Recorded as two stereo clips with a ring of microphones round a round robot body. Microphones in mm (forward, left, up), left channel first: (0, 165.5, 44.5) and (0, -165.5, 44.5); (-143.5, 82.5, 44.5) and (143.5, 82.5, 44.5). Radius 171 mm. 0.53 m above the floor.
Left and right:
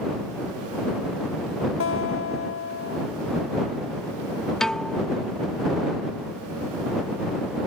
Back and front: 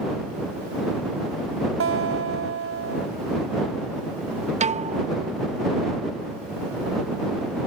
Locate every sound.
1.8 s a guitar: 40° left
4.6 s a piano: 5° left